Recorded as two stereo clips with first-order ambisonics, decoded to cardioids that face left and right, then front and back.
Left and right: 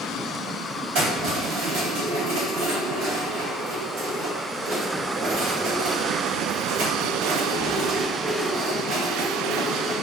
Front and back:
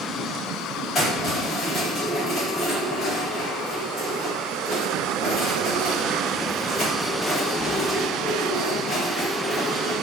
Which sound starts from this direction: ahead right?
Keys jangling, at 0.9 s.